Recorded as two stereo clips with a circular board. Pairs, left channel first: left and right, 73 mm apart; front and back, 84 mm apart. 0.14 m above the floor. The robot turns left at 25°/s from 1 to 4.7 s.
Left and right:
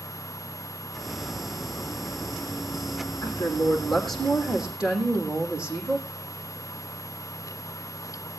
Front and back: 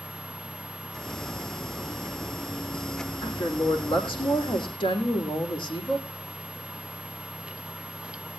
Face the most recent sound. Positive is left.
turn(degrees=-10)